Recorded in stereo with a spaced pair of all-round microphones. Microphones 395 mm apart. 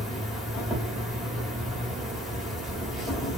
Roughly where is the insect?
Centre.